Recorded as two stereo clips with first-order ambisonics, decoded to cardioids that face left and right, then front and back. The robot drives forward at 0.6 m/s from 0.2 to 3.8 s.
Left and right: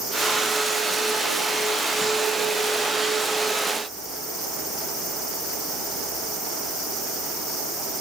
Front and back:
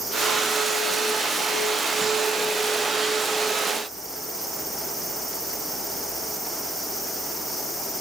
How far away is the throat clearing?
No throat clearing in this recording.